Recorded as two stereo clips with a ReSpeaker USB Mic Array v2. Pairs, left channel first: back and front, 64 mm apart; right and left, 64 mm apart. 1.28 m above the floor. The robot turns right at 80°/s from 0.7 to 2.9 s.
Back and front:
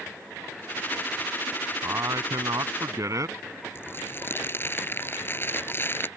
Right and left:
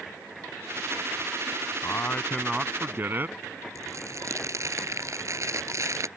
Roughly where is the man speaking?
Ahead right.